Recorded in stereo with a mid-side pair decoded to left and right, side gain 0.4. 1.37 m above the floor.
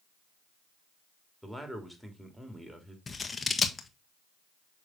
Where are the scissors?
30° left, 1.3 m.